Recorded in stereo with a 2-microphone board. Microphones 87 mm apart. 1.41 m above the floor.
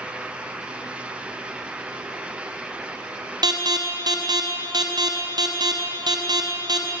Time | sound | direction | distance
3.4 | an alarm | 55° right (ahead or behind) | 0.8 m